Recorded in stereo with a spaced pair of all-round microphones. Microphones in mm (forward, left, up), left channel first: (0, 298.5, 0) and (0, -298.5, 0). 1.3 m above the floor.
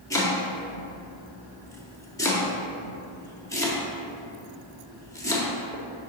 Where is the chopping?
5° left (ahead or behind), 1.1 m.